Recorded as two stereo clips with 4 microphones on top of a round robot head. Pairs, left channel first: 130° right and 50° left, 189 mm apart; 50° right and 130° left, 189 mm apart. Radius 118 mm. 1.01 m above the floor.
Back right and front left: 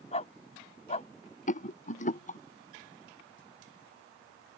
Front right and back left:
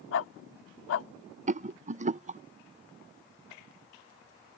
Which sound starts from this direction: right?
A dog barking, at 0.1 s.